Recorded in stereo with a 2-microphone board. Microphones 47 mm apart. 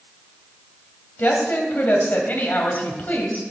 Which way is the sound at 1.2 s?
40° left (ahead or behind).